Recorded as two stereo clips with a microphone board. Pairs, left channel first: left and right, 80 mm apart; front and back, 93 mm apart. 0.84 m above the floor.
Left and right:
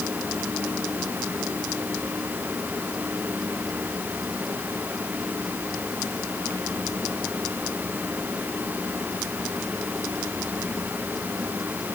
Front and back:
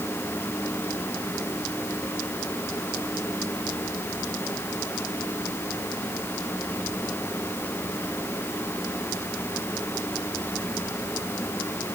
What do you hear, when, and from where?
Only background noise.